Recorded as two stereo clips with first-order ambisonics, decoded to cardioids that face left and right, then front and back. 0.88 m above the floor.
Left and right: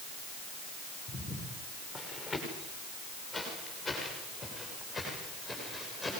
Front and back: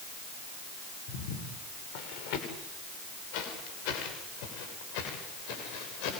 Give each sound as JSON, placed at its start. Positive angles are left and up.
{"t": 1.1, "sound": "footsteps", "azimuth_deg": 5, "distance_m": 7.5}